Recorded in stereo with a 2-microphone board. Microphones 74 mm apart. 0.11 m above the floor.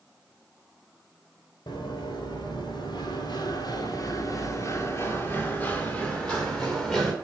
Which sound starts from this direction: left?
Running footsteps, at 1.7 s.